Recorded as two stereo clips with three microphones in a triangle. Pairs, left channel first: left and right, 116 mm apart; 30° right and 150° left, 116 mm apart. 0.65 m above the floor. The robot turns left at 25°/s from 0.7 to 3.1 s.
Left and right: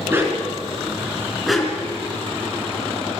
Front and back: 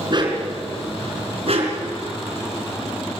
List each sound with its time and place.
0.1 s a dog barking: 160° right, 3.5 m; by 1.9 s 170° left, 3.5 m